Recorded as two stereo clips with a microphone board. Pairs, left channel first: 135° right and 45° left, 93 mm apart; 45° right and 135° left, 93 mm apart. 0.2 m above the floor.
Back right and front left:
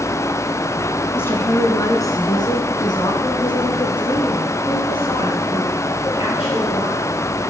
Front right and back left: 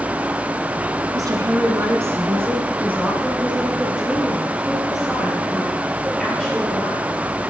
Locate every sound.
1.1 s a woman speaking: 165° left, 1.6 m; by 7.0 s 130° right, 3.5 m